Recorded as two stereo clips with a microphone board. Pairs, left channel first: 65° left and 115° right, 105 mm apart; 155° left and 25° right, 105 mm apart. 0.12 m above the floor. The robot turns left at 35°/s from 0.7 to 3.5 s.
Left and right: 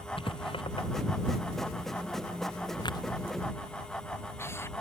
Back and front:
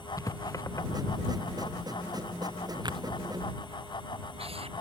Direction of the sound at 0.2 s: 100° left.